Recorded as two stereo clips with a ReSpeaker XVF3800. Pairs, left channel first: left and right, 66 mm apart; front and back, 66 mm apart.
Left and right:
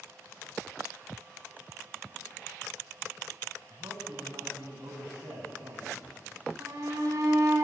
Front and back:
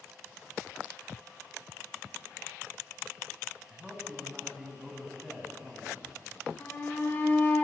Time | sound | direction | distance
3.7 | a man speaking | 95° right | 5 m
6.6 | a shout | 60° right | 5.5 m